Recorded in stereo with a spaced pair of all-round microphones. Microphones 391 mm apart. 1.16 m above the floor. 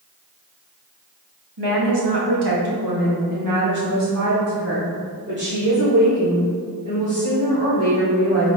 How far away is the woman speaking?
About 1.5 m.